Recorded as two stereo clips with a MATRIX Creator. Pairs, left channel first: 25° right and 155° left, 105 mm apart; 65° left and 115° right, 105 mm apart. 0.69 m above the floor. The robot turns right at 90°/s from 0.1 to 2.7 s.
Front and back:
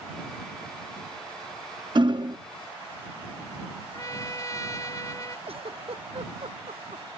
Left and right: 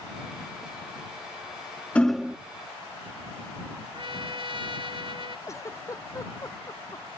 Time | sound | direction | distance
1.9 | hammering | 140° left | ?
3.9 | a trumpet | 80° right | ?
5.5 | a giggle | 130° left | ?